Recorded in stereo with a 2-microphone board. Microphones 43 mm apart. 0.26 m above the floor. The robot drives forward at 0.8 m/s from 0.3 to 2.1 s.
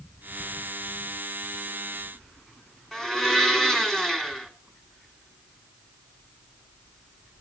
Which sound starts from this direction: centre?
A blender, at 2.9 s.